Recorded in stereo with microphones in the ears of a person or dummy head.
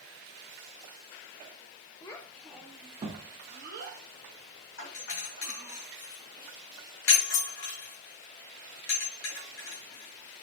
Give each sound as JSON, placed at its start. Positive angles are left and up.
{"t": 2.0, "sound": "a child speaking", "side_deg": 20, "distance_m": 0.7}
{"t": 4.8, "sound": "a doorbell", "side_deg": 75, "distance_m": 2.5}